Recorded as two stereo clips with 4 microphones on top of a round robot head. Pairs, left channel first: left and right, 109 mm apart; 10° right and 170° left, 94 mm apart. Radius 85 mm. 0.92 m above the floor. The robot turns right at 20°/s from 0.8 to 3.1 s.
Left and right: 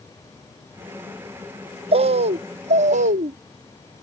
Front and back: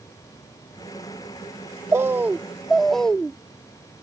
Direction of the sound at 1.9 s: 120° right.